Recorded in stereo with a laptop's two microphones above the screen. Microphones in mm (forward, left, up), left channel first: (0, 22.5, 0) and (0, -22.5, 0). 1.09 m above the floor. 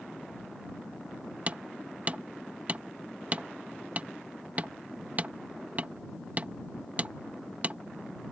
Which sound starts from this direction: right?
Hammering, at 1.5 s.